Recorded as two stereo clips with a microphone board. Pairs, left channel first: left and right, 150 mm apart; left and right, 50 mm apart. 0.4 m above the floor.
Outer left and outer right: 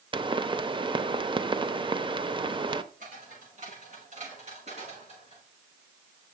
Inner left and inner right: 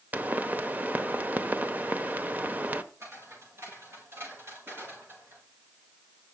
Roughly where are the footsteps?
Right.